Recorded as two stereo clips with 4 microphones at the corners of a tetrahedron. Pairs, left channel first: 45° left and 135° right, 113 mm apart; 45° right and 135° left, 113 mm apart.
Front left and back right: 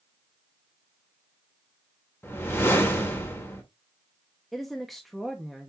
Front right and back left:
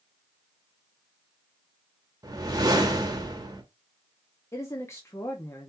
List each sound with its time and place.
2.2 s a whoosh: 105° left, 1.2 m
4.5 s a woman speaking: 45° right, 0.9 m